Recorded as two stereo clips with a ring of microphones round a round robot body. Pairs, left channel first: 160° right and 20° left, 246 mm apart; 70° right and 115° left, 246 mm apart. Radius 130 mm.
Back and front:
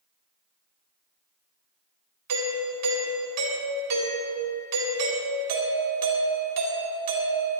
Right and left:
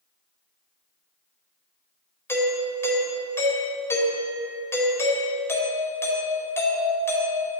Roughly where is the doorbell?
Ahead.